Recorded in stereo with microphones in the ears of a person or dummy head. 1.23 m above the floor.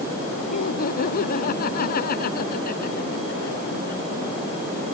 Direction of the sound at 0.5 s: 50° left (ahead or behind).